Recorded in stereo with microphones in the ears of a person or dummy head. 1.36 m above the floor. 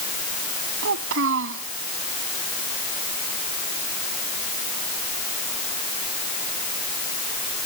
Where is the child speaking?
75° right (ahead or behind).